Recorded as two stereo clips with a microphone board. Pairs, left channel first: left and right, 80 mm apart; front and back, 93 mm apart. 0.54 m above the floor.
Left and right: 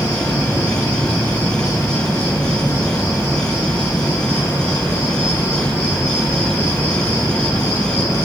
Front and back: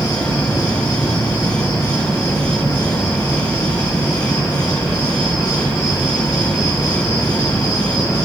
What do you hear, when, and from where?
0.0 s an insect: 30° left, 2.5 m